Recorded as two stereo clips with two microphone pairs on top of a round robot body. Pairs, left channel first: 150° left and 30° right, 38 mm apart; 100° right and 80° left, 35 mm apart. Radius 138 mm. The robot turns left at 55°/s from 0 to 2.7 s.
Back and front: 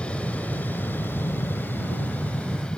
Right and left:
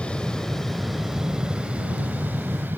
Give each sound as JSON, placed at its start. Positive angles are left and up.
{"t": 0.0, "sound": "an aircraft", "azimuth_deg": -155}